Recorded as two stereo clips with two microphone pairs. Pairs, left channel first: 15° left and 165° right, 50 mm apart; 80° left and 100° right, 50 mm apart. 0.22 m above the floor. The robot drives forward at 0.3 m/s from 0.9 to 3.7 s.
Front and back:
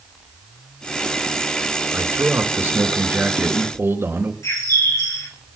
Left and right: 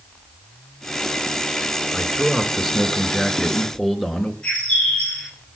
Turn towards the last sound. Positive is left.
turn(degrees=5)